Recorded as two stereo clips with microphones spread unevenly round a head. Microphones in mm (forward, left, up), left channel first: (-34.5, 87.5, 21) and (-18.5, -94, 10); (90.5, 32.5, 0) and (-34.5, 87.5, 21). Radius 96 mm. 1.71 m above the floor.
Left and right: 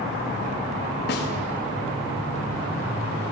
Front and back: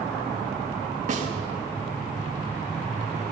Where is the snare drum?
125° left, 4 m.